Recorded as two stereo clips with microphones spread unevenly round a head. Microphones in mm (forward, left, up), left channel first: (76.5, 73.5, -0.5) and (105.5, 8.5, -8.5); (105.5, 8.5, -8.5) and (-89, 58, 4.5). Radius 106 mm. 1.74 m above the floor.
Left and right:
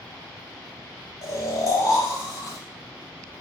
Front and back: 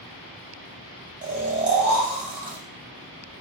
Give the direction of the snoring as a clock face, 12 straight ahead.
8 o'clock.